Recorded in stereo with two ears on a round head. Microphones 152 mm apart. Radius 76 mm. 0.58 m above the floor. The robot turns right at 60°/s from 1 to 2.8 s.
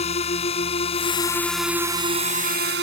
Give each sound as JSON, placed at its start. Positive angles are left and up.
{"t": 0.0, "sound": "a drone", "side_deg": 40}